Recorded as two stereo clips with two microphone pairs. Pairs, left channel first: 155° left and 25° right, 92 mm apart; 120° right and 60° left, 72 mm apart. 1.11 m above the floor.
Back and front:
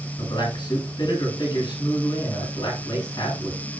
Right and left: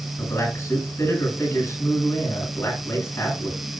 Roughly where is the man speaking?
Behind.